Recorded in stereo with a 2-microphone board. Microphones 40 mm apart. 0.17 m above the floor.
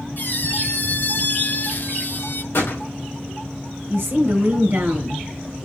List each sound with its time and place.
0.2 s a squeak: 50° left (ahead or behind), 0.8 m
2.5 s a gunshot: 70° left (ahead or behind), 5 m
3.9 s a woman speaking: 60° right (ahead or behind), 2.5 m